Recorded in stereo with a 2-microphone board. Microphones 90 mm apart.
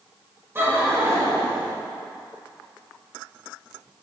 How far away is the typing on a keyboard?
I don't hear typing on a keyboard.